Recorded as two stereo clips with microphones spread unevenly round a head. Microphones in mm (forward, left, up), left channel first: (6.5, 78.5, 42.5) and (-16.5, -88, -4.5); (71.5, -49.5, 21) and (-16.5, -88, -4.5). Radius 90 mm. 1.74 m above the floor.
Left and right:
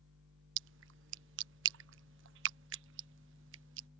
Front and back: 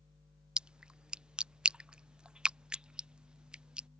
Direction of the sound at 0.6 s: 70° right.